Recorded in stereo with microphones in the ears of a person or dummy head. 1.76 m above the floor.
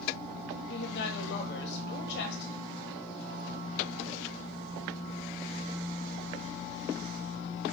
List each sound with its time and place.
0.7 s a woman speaking: 55° left (ahead or behind), 1.4 m